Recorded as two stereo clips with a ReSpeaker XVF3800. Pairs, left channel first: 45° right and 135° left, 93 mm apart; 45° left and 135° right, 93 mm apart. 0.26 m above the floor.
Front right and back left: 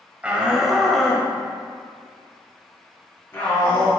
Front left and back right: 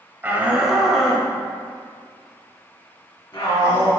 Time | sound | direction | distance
0.2 | a shout | 170° right | 1.0 m